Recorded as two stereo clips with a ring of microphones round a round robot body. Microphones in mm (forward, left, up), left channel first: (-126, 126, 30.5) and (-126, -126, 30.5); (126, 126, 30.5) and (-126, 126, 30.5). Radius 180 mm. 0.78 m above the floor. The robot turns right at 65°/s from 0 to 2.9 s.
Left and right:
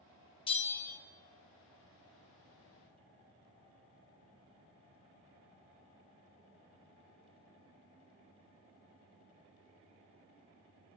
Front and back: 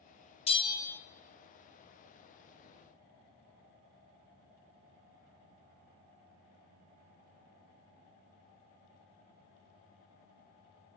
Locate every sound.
0.5 s a bell: 40° left, 0.8 m; by 1.0 s 75° left, 0.8 m